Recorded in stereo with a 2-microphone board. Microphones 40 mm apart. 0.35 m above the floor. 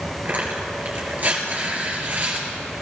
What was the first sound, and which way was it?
Tearing paper, 50° right (ahead or behind).